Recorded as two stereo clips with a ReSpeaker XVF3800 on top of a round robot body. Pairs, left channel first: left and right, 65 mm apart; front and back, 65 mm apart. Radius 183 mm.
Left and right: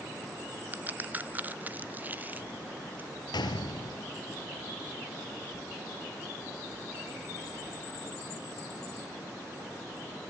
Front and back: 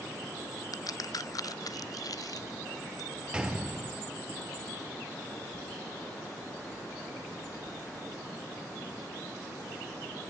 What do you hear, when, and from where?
0.7 s a crack: 25° right, 0.9 m
3.3 s a gunshot: 100° left, 1.8 m